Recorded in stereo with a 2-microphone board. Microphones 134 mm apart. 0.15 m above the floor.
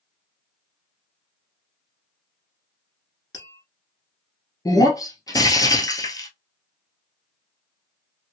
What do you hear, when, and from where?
3.3 s tapping: 30° left (ahead or behind), 1.5 m
4.7 s breaking glass: 30° left (ahead or behind), 0.8 m